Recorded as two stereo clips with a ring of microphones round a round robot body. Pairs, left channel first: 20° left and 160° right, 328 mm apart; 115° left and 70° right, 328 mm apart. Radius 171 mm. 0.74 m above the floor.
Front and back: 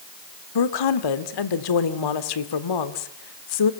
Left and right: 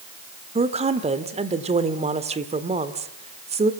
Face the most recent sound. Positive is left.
turn(degrees=5)